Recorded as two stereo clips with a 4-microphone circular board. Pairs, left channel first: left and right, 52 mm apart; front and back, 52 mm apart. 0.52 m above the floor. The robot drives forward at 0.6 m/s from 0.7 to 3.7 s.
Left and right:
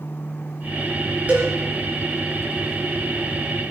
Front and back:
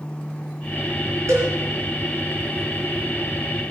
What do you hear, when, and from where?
1.3 s a cowbell: 155° right, 4.5 m